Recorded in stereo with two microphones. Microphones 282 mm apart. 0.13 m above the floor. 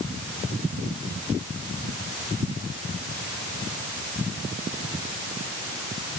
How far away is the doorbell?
No doorbell in this recording.